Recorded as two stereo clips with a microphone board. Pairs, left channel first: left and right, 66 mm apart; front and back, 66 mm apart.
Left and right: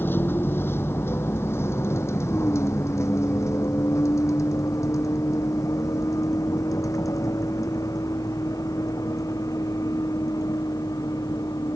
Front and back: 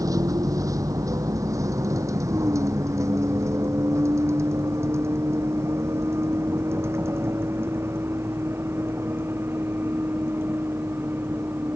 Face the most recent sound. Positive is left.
turn(degrees=120)